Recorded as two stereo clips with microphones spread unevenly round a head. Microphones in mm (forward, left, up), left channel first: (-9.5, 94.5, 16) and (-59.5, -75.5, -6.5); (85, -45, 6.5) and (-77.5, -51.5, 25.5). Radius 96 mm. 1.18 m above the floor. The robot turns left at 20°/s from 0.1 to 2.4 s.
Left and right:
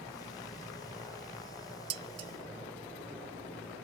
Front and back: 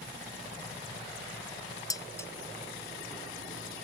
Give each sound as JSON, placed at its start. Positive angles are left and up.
{"t": 1.9, "sound": "dishes clattering", "azimuth_deg": -65}